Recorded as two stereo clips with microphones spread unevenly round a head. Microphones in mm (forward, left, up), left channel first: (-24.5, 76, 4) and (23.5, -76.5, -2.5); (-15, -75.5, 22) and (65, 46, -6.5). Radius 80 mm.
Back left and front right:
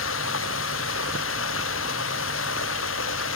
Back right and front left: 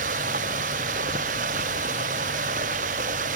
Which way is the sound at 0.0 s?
105° left.